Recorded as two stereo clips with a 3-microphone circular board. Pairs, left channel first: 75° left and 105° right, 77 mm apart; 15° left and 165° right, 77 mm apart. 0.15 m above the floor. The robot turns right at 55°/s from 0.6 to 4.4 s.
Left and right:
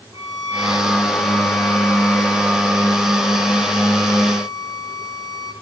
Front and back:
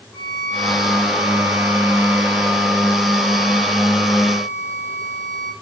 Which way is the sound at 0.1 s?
80° right.